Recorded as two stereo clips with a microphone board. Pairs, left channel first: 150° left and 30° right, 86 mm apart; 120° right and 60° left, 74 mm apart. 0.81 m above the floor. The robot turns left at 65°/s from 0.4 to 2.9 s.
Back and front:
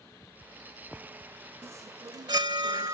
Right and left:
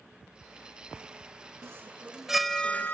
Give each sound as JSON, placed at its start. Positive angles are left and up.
{"t": 1.6, "sound": "a chime", "azimuth_deg": 20}